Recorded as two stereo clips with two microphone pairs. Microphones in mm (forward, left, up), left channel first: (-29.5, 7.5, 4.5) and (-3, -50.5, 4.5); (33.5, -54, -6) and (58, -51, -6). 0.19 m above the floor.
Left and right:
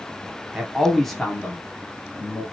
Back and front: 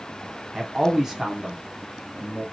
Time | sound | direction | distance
0.5 | a man speaking | 15° right | 1.2 m